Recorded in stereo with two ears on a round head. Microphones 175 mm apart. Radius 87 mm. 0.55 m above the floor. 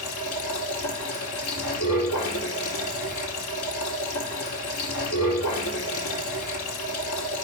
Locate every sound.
0.0 s running water: 85° left, 4 m